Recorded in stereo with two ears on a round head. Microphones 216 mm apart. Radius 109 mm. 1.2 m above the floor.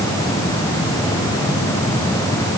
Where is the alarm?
No alarm in this recording.